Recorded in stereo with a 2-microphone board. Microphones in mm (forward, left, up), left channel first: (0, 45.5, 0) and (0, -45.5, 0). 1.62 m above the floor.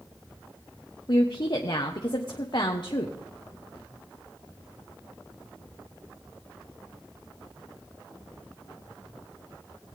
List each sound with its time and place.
1.1 s a woman speaking: 55° left (ahead or behind), 1.1 m